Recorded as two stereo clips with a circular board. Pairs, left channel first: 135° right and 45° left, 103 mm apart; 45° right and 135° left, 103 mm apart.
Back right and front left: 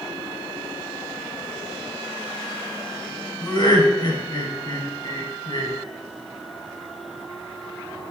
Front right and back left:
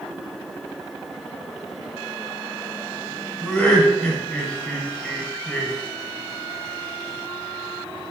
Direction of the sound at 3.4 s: 120° right.